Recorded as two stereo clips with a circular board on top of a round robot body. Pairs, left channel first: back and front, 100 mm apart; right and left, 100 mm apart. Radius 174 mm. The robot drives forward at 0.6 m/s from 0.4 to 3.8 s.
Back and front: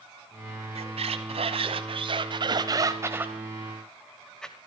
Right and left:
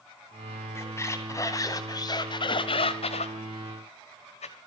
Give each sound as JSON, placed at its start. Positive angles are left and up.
{"t": 0.8, "sound": "a squeak", "azimuth_deg": -25, "distance_m": 2.0}